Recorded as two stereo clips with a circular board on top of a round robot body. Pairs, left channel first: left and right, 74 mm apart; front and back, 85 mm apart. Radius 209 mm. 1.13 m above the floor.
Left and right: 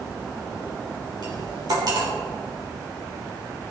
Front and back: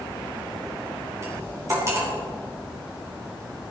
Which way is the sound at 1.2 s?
120° right.